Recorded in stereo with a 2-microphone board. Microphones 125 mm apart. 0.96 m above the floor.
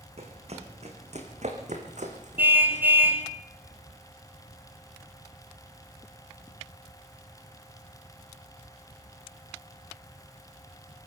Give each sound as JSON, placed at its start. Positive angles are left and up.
{"t": 0.2, "sound": "running footsteps", "side_deg": -55, "distance_m": 4.0}
{"t": 2.4, "sound": "a car horn", "side_deg": -15, "distance_m": 3.0}